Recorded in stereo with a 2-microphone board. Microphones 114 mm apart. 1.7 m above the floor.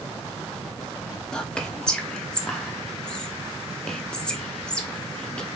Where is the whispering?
10° left (ahead or behind), 0.6 m.